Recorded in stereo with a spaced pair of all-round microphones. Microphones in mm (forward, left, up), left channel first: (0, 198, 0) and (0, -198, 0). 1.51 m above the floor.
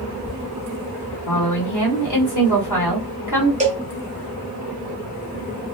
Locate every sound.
1.3 s a woman speaking: 45° left (ahead or behind), 1.0 m
3.6 s a cowbell: 20° right (ahead or behind), 0.7 m